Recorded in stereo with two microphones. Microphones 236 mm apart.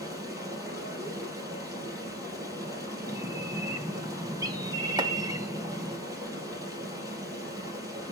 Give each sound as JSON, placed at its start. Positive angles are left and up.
{"t": 0.0, "sound": "running water", "side_deg": -15, "distance_m": 5.0}
{"t": 3.1, "sound": "a bird", "side_deg": -15, "distance_m": 1.1}
{"t": 5.0, "sound": "chopping", "side_deg": -20, "distance_m": 1.2}